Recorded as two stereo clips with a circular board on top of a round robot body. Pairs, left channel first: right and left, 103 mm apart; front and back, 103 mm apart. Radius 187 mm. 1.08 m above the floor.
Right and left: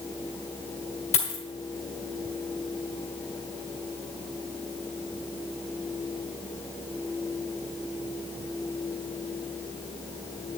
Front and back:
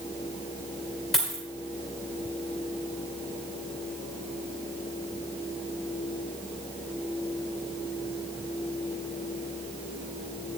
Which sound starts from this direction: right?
A dropped coin, at 1.1 s.